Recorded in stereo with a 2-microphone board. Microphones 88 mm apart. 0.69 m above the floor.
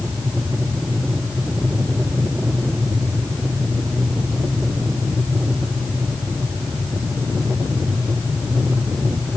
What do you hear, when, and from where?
Only background noise.